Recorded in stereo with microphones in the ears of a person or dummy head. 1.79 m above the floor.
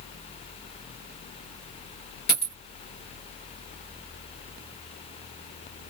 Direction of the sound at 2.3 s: 45° left (ahead or behind).